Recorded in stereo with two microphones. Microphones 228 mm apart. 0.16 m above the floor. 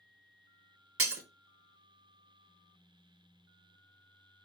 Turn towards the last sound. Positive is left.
turn(degrees=-75)  # may be behind; listen again after turning